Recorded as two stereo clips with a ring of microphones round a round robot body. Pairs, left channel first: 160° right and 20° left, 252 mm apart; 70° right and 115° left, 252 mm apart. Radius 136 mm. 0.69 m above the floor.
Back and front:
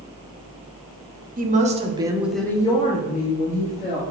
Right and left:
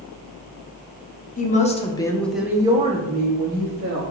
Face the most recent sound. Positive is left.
turn(degrees=160)